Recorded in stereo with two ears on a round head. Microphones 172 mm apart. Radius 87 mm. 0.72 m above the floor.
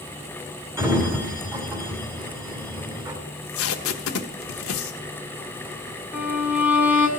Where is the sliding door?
15° right (ahead or behind), 2.5 m.